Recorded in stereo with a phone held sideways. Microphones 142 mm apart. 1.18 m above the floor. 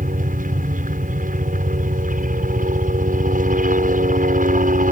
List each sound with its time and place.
0.0 s a helicopter: 65° right (ahead or behind)